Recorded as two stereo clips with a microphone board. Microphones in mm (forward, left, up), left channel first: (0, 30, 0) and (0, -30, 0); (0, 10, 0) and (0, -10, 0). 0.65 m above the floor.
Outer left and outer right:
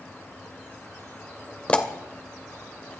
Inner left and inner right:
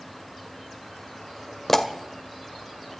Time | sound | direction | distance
1.7 | a pop | 20° left (ahead or behind) | 1.3 m